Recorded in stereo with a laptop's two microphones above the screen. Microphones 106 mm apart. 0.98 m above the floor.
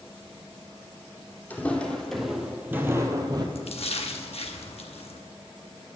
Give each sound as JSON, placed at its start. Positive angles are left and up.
{"t": 1.5, "sound": "footsteps", "side_deg": 15, "distance_m": 1.8}
{"t": 3.5, "sound": "a splash", "side_deg": 65, "distance_m": 0.8}